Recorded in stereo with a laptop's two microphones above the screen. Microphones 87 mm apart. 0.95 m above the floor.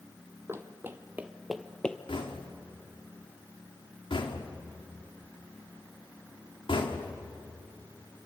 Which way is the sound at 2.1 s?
80° left.